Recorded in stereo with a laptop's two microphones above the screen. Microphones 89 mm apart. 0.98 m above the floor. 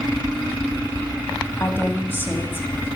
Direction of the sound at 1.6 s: 25° left (ahead or behind).